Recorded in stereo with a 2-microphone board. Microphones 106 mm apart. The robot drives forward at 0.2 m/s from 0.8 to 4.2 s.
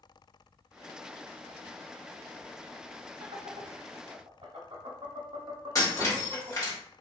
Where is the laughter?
70° right (ahead or behind), 0.9 m; by 6.8 s 60° right (ahead or behind), 1.0 m.